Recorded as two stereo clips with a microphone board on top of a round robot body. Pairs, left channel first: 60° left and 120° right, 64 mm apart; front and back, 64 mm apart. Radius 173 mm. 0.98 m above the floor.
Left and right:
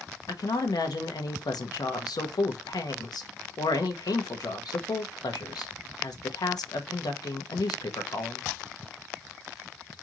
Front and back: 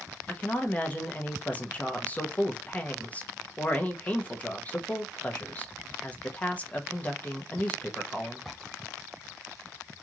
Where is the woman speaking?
65° left, 1.2 m.